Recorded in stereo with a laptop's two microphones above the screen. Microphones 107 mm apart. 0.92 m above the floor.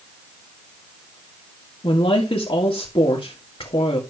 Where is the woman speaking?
60° left (ahead or behind), 1.8 m.